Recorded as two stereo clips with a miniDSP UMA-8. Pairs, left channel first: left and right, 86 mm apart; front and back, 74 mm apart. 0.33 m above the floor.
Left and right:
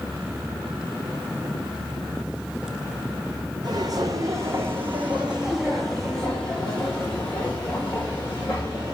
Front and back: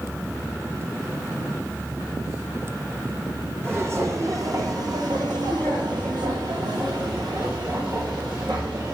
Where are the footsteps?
125° right, 1.2 m; by 8.9 s 150° left, 2.5 m.